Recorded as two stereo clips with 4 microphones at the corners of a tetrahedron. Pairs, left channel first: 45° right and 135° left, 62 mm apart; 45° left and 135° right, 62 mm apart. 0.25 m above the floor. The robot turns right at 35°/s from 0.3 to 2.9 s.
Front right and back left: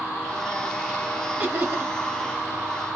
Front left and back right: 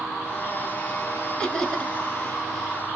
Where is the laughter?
115° left, 1.2 m; by 1.9 s 135° left, 1.2 m.